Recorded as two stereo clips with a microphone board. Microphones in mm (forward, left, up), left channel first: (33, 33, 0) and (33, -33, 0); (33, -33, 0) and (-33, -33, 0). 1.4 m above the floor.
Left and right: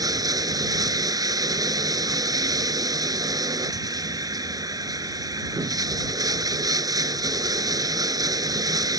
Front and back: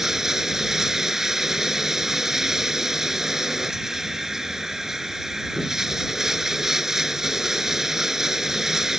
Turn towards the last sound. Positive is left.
turn(degrees=-100)